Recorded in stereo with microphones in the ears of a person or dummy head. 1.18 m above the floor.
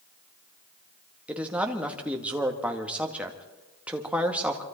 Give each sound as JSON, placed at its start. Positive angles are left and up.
{"t": 1.3, "sound": "a man speaking", "side_deg": -10, "distance_m": 2.0}